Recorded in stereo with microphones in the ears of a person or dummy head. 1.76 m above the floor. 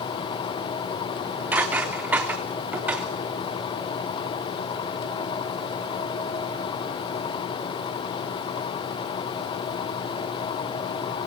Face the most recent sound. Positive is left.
turn(degrees=0)  # may be behind; listen again after turning